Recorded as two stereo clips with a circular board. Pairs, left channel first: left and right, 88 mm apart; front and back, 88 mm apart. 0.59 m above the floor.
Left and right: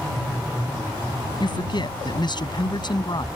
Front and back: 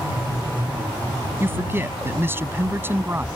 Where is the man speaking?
115° left.